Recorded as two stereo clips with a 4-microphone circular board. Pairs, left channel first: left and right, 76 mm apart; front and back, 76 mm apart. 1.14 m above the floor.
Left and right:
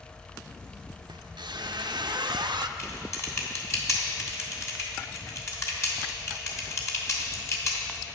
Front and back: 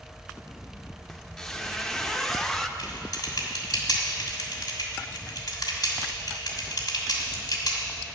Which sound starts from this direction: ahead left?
Typing on a keyboard, at 2.8 s.